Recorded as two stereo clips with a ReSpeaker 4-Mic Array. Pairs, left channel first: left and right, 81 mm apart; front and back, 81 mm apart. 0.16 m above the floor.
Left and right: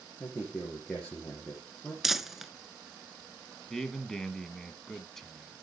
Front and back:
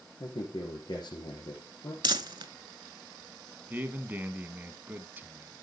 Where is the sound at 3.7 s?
170° left, 1.0 m.